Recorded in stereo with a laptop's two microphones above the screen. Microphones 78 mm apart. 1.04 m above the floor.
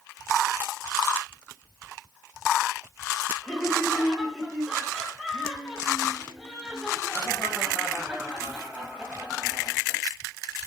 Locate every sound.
3.4 s laughter: 5° left (ahead or behind), 6.5 m; by 10.0 s 15° right (ahead or behind), 9 m